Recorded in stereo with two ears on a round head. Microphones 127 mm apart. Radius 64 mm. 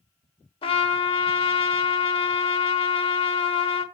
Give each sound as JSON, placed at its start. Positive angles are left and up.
{"t": 0.6, "sound": "a trumpet", "side_deg": 40, "distance_m": 1.1}